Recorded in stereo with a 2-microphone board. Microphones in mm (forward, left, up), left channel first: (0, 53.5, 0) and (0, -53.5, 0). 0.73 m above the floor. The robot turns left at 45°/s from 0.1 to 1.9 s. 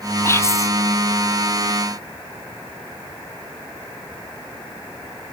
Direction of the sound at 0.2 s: 25° left (ahead or behind).